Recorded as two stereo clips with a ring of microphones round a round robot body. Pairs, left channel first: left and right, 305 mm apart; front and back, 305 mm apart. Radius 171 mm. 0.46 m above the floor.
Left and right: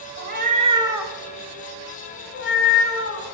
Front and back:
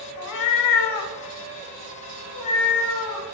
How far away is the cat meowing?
About 1.1 m.